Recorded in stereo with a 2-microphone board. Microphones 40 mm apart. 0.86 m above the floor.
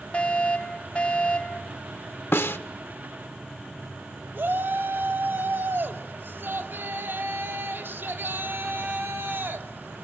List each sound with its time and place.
0.1 s a fire alarm: 30° left (ahead or behind), 3.5 m
2.3 s a snare drum: 75° left (ahead or behind), 1.0 m
4.3 s a shout: 60° right (ahead or behind), 2.5 m